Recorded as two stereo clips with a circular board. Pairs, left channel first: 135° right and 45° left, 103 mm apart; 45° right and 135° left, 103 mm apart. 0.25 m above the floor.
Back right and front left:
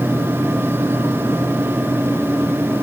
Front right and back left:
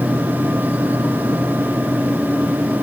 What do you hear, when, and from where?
Only background noise.